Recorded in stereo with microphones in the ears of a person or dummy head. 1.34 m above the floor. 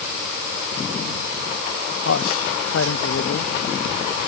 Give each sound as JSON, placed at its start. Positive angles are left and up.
{"t": 2.0, "sound": "a man speaking", "side_deg": 70}